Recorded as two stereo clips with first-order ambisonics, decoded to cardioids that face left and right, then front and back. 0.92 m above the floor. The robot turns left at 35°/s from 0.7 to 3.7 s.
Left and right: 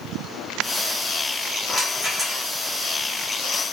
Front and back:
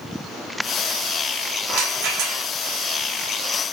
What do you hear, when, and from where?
1.7 s a rattle: 165° right, 1.9 m; by 2.4 s 170° left, 1.9 m